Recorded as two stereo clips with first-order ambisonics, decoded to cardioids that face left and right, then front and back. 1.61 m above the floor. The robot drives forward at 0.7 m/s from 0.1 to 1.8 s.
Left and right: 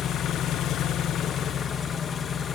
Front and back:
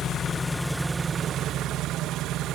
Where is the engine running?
50° left, 0.9 m; by 2.5 s 150° left, 1.1 m.